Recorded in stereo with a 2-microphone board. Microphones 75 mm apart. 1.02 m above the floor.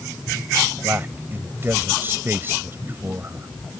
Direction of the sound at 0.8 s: 30° right (ahead or behind).